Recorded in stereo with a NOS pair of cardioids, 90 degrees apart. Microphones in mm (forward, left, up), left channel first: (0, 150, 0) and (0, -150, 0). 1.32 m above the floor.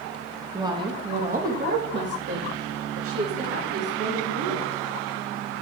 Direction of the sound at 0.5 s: 10° right.